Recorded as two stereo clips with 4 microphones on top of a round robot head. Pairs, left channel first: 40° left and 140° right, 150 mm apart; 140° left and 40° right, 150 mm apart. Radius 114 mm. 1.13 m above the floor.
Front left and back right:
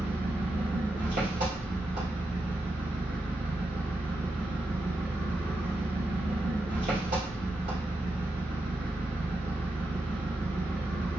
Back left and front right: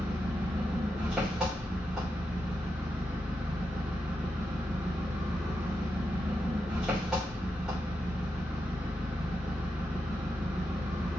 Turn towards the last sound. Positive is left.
turn(degrees=-125)